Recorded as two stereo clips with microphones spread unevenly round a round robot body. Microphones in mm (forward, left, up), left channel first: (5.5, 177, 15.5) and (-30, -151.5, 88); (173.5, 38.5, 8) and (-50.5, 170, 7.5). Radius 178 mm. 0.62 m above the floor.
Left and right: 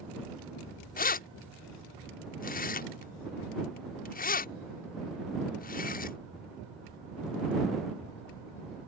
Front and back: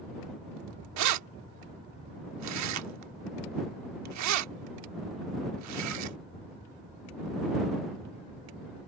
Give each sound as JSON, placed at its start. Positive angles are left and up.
{"t": 1.0, "sound": "keys jangling", "azimuth_deg": 145}